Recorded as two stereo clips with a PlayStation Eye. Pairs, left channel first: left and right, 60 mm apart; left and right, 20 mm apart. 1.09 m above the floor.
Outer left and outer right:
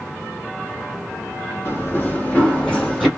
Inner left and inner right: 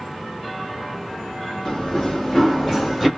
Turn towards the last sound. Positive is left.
turn(degrees=0)  # may be behind; listen again after turning